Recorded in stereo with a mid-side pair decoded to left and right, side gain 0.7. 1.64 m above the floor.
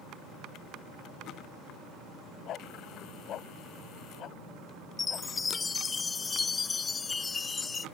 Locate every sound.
2.5 s a dog barking: 45° left
5.0 s a chime: 20° left